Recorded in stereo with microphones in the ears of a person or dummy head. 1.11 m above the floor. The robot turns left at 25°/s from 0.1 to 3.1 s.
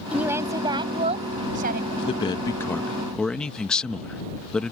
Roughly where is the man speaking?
Left.